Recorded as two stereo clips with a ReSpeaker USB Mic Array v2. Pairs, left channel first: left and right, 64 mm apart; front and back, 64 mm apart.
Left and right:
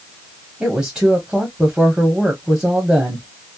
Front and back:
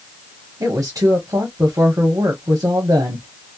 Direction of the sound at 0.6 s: 160° right.